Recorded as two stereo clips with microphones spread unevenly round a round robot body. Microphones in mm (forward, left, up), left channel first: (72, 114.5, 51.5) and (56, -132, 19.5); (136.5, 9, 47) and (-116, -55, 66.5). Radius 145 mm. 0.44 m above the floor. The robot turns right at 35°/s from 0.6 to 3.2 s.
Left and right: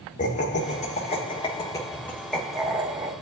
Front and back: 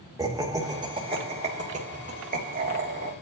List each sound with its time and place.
0.2 s laughter: 125° left, 1.3 m; by 3.1 s 145° right, 1.3 m